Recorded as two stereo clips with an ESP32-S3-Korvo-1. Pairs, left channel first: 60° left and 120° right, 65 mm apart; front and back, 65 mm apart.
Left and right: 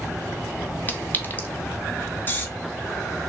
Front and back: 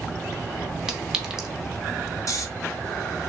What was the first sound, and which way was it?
A clink, 100° left.